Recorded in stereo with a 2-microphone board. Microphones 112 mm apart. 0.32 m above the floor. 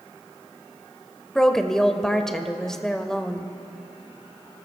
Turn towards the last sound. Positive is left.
turn(degrees=5)  # may be behind; listen again after turning